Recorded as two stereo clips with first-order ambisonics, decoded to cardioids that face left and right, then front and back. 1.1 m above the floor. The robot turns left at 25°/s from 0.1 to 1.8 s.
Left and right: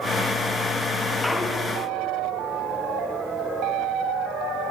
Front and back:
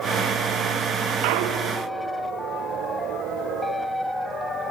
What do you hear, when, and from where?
1.2 s a clunk: 170° left, 0.5 m; by 1.8 s 155° left, 0.5 m